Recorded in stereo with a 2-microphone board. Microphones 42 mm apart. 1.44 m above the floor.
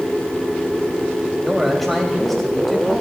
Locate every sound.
1.4 s a man speaking: 5° left (ahead or behind), 3.5 m